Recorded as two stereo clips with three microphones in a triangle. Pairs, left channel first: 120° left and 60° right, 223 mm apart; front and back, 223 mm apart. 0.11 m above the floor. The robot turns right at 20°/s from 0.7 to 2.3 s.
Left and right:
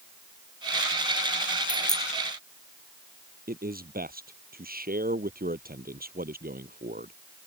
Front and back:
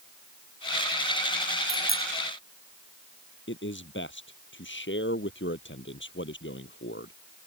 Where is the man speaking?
20° right.